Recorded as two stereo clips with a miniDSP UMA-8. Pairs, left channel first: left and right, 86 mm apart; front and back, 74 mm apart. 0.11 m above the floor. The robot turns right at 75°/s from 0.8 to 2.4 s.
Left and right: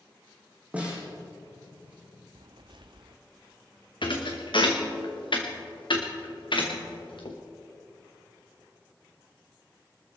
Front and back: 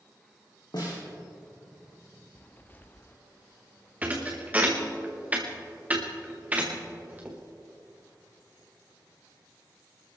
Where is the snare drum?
15° right, 4.5 m; by 1.1 s 5° left, 4.5 m.